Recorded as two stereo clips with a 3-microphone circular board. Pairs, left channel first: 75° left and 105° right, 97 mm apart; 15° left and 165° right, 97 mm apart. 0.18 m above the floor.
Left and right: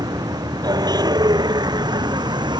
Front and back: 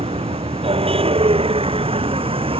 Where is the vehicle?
155° right; by 2.6 s 145° right.